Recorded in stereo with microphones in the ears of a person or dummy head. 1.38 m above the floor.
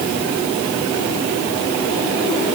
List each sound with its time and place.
Only background noise.